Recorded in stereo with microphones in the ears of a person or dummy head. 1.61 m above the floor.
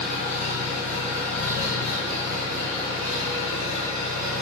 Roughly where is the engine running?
Centre.